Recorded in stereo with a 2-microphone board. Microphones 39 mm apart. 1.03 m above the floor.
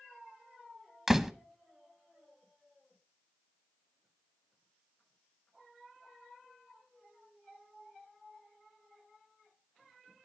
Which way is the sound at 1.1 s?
10° right (ahead or behind).